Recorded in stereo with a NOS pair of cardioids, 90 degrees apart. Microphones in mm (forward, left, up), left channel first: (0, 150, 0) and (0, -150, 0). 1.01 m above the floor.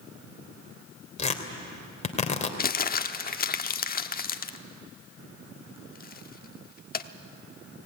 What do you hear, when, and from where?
1.2 s tearing paper: 25° left, 2.5 m
2.6 s crumpling: 30° left, 1.1 m